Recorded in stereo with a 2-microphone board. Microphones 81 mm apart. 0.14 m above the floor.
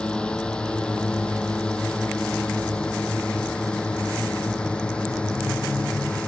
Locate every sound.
0.0 s a drone: 10° left (ahead or behind)